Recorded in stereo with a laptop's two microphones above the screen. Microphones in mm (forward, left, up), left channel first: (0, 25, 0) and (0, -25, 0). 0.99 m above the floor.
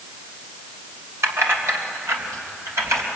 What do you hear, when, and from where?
1.2 s keys jangling: 80° right, 3 m; by 3.0 s 85° right, 4 m